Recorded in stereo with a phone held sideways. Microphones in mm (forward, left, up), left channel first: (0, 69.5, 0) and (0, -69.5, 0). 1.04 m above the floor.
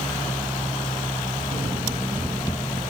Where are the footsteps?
50° right (ahead or behind), 1.6 m; by 2.8 s 30° left (ahead or behind), 1.4 m.